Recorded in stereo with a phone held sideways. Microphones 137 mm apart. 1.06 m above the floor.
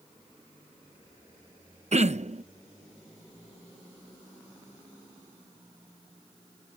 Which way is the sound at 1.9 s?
55° right (ahead or behind).